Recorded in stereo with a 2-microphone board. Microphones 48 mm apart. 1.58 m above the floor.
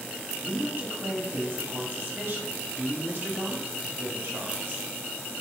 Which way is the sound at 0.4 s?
45° right (ahead or behind).